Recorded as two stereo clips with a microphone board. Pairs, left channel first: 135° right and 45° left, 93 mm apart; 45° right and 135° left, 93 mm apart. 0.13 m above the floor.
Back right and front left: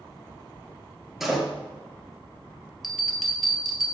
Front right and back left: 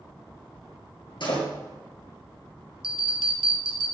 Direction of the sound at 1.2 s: 40° right.